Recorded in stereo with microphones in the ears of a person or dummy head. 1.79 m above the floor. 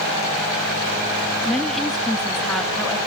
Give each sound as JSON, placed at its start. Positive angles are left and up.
{"t": 1.4, "sound": "a woman speaking", "side_deg": 0, "distance_m": 0.8}